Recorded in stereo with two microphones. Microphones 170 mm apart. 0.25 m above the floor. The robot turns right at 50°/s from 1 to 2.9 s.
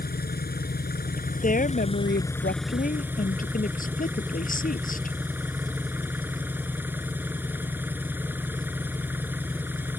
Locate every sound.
0.0 s an engine running: 95° left; by 10.0 s 170° right
1.4 s a woman speaking: 50° left; by 5.2 s 125° left